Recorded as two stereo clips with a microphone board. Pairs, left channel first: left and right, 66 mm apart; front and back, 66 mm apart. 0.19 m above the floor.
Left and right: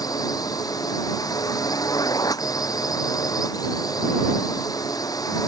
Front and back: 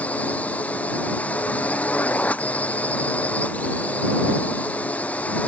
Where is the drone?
70° left.